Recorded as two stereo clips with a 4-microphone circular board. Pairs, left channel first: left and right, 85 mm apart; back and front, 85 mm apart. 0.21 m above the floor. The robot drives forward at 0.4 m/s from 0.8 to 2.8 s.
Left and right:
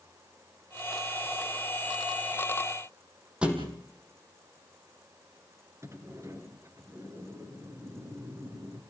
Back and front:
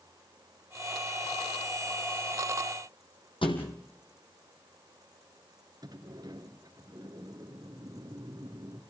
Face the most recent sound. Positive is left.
turn(degrees=-35)